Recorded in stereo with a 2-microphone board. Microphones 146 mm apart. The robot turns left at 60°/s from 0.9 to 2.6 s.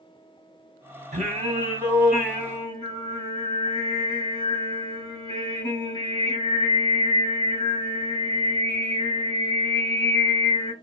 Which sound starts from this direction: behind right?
Singing, at 1.1 s.